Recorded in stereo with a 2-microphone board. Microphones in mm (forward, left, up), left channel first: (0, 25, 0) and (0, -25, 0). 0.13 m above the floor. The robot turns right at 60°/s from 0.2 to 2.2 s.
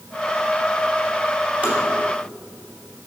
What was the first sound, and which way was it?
Tapping, 25° right (ahead or behind).